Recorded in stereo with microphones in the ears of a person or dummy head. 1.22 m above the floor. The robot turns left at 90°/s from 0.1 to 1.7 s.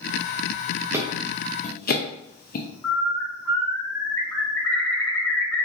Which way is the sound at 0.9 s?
15° right (ahead or behind).